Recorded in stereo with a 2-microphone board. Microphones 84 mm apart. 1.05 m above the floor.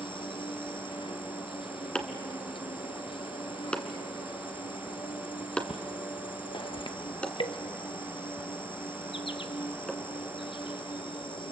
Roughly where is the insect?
Left.